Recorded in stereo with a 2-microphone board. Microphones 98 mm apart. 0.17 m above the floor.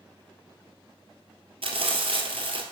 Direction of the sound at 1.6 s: 70° right (ahead or behind).